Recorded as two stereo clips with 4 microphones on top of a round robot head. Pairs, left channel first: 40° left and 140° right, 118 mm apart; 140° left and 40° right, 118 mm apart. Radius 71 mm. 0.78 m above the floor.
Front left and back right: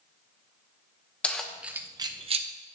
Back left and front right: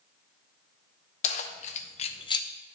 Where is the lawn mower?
I don't hear a lawn mower.